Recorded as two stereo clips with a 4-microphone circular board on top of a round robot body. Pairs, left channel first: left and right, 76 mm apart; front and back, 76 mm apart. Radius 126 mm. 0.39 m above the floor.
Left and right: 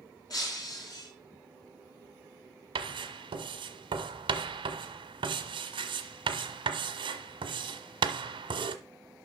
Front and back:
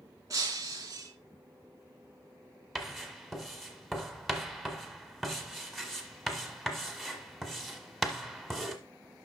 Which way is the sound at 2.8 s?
90° right.